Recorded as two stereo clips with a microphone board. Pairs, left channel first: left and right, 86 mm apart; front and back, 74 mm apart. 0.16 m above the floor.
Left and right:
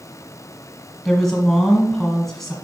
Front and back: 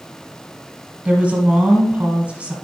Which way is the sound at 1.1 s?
165° left.